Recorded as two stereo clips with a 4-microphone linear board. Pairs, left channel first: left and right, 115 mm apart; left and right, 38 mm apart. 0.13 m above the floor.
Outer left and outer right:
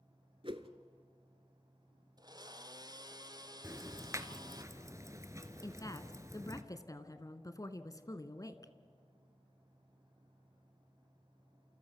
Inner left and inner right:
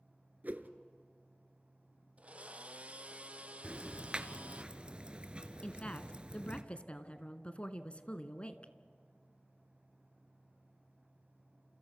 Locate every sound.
0.4 s a whoosh: 50° right (ahead or behind), 1.2 m
2.2 s a blender: 40° right (ahead or behind), 1.0 m
3.6 s ticking: 30° right (ahead or behind), 1.4 m
5.6 s a woman speaking: 30° left (ahead or behind), 1.3 m